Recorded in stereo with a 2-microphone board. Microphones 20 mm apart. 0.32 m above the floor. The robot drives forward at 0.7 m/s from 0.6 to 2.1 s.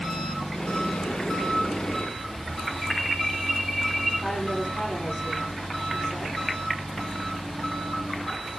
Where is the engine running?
50° left (ahead or behind), 7 m; by 8.6 s 45° left (ahead or behind), 8 m.